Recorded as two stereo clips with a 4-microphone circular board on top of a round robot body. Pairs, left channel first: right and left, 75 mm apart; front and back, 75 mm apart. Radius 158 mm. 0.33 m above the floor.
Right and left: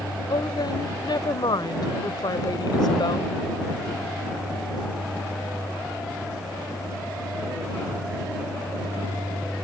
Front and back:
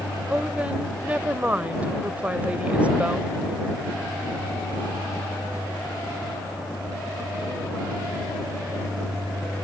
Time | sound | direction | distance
0.3 | a woman speaking | 110° right | ?